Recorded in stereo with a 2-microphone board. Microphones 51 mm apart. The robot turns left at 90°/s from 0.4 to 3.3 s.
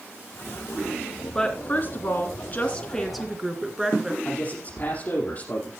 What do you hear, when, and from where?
1.4 s a woman speaking: 160° left, 2 m; by 4.2 s 15° right, 2 m
4.2 s a man speaking: 40° left (ahead or behind), 5 m